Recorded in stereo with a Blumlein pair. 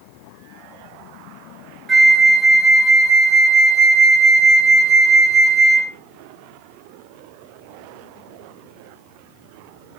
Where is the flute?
10° right, 0.7 m.